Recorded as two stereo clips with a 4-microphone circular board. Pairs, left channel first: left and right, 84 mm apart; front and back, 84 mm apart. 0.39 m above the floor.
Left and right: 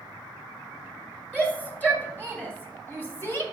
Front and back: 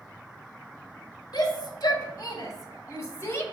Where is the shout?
20° left, 2.5 m; by 3.4 s 45° left, 1.7 m.